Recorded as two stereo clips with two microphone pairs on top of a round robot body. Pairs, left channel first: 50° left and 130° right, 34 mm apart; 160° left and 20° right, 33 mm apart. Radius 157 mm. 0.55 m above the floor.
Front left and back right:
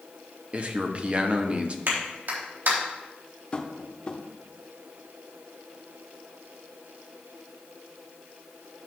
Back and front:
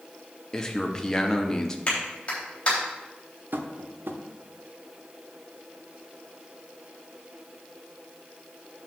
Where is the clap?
140° right, 3.5 m.